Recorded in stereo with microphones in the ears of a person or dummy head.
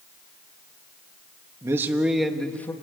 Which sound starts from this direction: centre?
A man speaking, at 1.6 s.